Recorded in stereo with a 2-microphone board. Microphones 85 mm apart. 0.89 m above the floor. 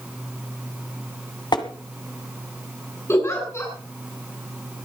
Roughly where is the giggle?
Left.